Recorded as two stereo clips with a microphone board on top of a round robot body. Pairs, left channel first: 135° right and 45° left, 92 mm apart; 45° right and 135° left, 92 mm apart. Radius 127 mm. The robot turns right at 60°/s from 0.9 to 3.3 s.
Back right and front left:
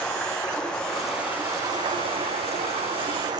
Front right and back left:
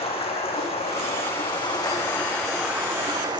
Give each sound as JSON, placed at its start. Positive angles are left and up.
{"t": 0.0, "sound": "running water", "azimuth_deg": -50, "distance_m": 6.0}